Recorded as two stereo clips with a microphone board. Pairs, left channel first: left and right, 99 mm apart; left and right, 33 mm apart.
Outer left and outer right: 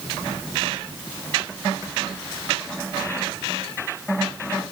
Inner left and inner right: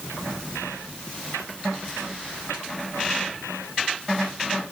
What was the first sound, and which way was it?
Only background noise.